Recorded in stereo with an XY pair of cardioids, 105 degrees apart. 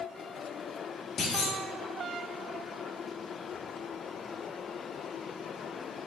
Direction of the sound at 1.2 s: 60° left.